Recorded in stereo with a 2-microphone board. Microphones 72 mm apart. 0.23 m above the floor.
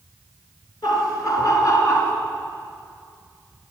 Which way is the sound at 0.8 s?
55° left (ahead or behind).